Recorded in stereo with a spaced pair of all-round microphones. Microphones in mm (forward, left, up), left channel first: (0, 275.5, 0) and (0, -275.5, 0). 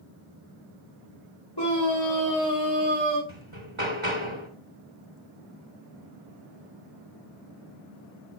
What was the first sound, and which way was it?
A scream, 45° left (ahead or behind).